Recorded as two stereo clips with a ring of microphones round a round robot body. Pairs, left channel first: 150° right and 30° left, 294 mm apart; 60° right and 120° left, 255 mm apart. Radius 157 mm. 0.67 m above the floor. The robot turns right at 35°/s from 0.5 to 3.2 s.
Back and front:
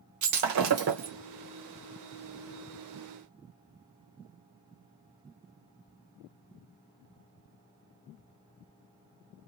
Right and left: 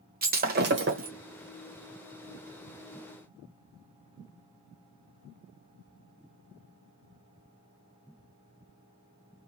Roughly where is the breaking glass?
Ahead left.